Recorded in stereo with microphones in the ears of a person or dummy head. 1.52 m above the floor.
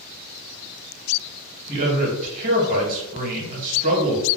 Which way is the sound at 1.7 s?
45° right (ahead or behind).